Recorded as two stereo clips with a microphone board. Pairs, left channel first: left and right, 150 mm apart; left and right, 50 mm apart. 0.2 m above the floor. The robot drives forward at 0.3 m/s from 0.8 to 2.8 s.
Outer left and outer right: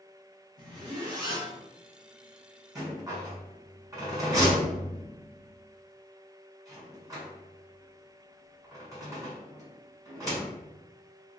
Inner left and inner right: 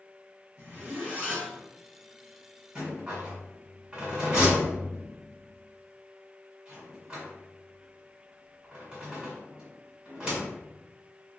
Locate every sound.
0.6 s a zipper: 30° right (ahead or behind), 1.1 m
2.8 s a rattle: 25° right (ahead or behind), 1.3 m